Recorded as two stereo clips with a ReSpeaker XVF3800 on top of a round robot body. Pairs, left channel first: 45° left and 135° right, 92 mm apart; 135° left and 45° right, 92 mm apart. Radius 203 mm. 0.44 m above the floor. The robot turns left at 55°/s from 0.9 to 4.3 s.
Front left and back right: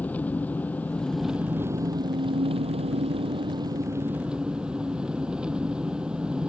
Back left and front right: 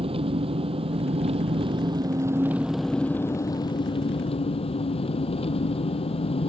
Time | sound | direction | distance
0.0 | an engine running | 30° right | ?